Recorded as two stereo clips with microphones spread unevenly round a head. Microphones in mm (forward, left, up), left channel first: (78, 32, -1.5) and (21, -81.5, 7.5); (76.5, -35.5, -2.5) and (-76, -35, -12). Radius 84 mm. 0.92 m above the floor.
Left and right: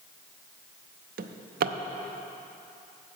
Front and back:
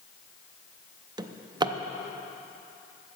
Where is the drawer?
115° right, 0.5 m.